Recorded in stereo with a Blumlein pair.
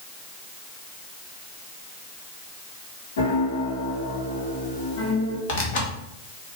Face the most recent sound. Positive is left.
turn(degrees=50)